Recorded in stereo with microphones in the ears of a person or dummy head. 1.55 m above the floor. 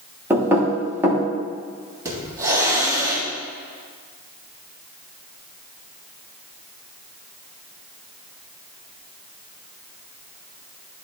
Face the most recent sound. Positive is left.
turn(degrees=-20)  # may be behind; listen again after turning